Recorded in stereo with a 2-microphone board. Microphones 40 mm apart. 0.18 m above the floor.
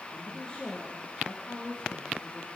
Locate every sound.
0.1 s a woman speaking: 20° left (ahead or behind), 7 m; by 2.5 s 25° left (ahead or behind), 8 m